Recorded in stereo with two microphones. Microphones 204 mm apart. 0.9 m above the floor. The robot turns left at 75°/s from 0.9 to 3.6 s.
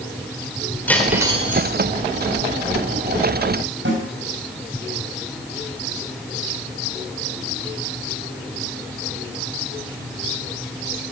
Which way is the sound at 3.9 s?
65° right (ahead or behind).